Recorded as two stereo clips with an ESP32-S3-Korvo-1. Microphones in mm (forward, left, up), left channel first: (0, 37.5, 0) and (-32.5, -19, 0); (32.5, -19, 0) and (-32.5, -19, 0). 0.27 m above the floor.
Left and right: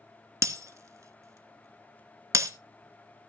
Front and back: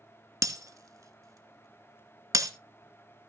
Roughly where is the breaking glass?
Behind right.